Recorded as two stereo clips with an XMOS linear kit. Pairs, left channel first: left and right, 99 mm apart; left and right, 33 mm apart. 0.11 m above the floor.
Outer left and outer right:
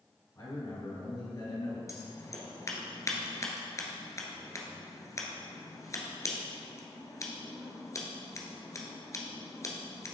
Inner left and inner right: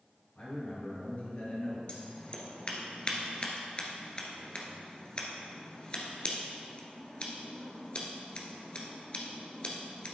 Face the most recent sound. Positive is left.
turn(degrees=30)  # may be behind; listen again after turning